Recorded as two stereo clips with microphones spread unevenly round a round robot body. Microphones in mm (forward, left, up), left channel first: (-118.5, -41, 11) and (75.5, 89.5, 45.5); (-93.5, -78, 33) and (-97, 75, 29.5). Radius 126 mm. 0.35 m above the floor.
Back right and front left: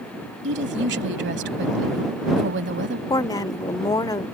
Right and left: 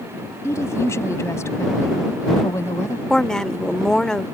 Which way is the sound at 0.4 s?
10° right.